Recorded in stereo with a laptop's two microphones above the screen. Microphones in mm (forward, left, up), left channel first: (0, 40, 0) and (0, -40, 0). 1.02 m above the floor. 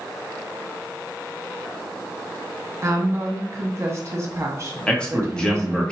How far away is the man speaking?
About 1.6 m.